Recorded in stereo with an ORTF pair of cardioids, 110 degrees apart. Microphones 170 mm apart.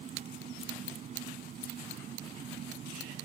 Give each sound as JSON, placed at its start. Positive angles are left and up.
{"t": 0.0, "sound": "an engine running", "azimuth_deg": -45}